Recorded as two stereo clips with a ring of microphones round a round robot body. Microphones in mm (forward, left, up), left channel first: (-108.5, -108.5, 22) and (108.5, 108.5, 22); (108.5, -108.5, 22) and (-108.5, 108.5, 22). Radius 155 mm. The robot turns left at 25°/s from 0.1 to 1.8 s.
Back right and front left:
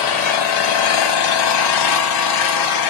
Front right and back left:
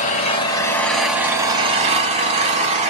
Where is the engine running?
110° right, 0.9 m; by 2.9 s 155° right, 0.9 m.